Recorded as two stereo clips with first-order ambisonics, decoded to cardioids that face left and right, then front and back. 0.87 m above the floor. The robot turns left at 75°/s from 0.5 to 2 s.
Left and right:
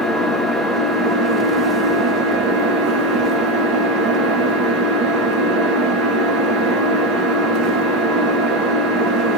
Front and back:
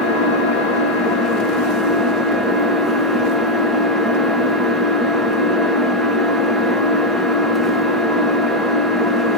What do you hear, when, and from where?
0.0 s an engine running: 10° left, 1.0 m; by 9.4 s 100° right, 1.0 m